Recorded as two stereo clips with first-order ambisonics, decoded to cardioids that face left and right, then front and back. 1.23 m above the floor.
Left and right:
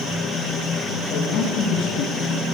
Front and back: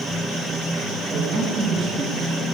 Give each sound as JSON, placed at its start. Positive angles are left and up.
{"t": 1.1, "sound": "a man speaking", "azimuth_deg": 115, "distance_m": 1.5}